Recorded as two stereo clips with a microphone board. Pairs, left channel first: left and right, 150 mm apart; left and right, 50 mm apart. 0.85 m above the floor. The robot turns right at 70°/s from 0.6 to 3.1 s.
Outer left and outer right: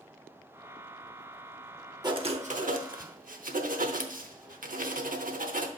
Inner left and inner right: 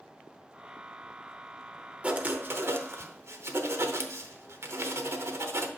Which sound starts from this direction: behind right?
Writing, at 2.0 s.